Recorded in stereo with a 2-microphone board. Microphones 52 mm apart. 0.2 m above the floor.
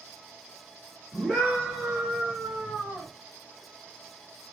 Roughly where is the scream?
Centre.